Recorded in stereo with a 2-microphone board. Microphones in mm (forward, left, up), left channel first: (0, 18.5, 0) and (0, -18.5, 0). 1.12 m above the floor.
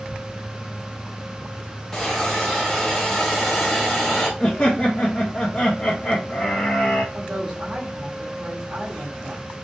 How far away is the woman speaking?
About 1.9 m.